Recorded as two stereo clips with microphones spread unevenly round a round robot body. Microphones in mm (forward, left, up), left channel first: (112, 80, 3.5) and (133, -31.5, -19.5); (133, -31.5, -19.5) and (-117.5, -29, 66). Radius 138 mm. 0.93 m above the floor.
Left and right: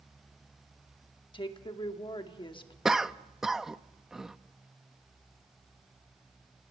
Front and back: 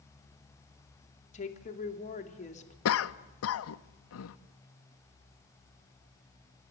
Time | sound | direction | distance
1.3 | a woman speaking | 55° left | 2.5 m
2.9 | a cough | 5° left | 0.9 m